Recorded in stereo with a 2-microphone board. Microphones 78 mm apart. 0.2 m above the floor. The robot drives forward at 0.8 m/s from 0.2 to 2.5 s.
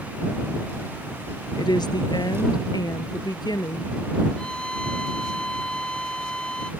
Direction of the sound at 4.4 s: 10° left (ahead or behind).